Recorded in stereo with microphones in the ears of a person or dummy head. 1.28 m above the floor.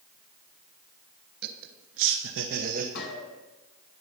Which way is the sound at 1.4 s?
55° right (ahead or behind).